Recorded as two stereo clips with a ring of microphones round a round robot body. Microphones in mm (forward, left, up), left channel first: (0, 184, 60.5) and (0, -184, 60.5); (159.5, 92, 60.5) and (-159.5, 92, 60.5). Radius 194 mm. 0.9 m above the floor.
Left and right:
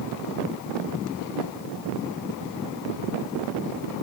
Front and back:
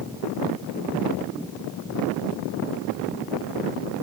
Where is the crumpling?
I don't hear crumpling.